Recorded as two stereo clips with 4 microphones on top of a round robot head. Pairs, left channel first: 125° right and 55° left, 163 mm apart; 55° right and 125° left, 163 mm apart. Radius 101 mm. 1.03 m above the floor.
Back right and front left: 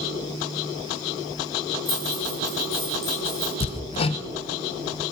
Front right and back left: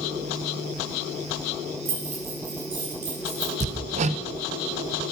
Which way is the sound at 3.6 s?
175° left.